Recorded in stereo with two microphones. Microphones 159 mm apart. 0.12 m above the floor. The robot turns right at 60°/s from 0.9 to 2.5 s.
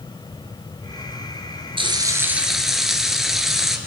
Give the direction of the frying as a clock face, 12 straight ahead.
2 o'clock.